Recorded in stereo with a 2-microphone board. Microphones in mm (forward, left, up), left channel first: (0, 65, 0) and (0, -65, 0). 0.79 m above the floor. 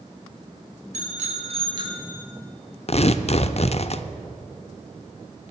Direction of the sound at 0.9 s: 70° right (ahead or behind).